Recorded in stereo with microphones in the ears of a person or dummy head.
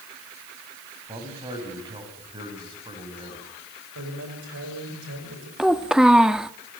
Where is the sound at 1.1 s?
25° right (ahead or behind), 7 m.